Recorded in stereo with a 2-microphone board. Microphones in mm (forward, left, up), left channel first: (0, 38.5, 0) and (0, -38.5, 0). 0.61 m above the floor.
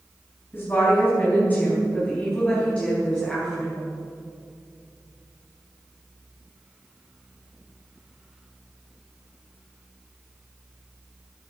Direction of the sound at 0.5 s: 30° left (ahead or behind).